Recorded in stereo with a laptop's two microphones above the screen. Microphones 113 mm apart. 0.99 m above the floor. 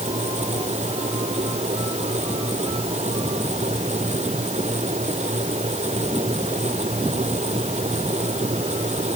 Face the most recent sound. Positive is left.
turn(degrees=-75)  # may be behind; listen again after turning